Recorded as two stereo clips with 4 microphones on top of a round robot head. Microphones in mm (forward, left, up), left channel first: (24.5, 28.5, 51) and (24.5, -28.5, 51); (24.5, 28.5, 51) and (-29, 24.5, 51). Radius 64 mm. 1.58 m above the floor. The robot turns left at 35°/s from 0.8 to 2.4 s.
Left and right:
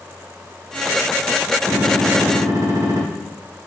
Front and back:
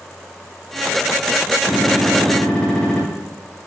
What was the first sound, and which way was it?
A gunshot, 40° right.